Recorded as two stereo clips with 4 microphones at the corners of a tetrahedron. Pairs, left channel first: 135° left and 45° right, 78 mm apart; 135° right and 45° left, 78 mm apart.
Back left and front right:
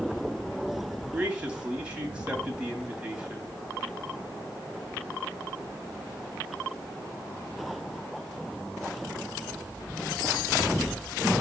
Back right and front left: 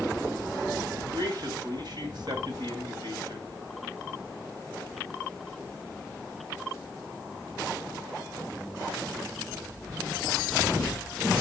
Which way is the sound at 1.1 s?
25° left.